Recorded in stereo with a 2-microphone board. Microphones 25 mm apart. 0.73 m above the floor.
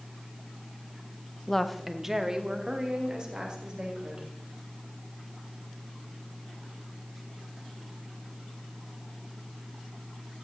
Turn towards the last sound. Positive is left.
turn(degrees=-40)  # may be behind; listen again after turning